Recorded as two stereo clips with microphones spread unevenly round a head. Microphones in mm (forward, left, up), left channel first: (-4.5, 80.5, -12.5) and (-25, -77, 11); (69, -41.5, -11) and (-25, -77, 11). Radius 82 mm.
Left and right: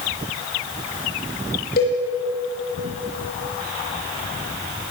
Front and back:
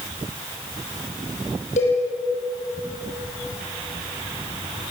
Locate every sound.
1.8 s a cowbell: 45° left, 10 m